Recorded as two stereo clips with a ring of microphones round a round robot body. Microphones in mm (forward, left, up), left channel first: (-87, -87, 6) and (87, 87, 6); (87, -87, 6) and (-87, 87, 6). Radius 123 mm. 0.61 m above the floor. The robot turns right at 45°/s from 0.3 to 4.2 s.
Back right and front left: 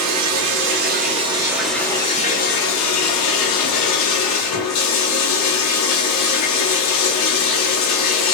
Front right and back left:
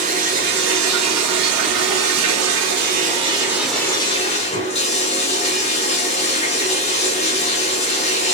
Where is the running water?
75° left, 0.8 m; by 8.3 s 110° right, 0.8 m.